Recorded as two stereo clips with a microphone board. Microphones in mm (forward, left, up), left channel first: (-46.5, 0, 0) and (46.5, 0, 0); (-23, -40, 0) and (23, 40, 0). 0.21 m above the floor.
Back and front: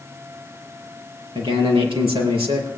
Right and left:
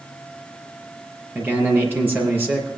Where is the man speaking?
10° right, 5 m.